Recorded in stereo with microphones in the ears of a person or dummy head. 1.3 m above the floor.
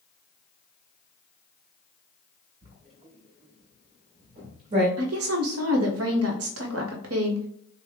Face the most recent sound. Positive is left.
turn(degrees=-80)